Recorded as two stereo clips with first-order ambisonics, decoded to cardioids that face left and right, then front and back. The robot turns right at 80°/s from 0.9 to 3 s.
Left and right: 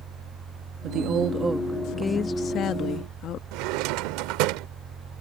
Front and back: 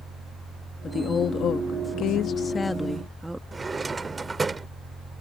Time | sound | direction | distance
0.8 | a woman speaking | 70° right | ?
3.5 | a drawer | 105° right | ?